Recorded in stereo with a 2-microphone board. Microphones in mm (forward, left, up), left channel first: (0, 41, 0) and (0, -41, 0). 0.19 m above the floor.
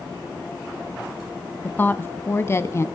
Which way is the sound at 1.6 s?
20° left (ahead or behind).